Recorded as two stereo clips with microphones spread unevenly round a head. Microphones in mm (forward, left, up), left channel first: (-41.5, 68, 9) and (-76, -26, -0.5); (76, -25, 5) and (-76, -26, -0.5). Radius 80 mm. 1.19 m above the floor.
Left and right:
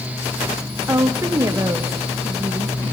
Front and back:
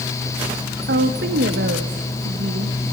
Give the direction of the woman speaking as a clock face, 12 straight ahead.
6 o'clock.